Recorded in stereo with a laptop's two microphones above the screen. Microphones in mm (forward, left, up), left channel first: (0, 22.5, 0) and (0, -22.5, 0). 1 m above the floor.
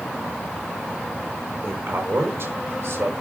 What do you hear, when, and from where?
1.6 s a man speaking: 75° right (ahead or behind), 3 m